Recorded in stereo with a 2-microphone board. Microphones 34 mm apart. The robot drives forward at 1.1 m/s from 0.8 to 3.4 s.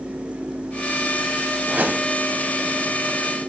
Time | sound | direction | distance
1.7 | a whoosh | 70° right (ahead or behind) | 2.5 m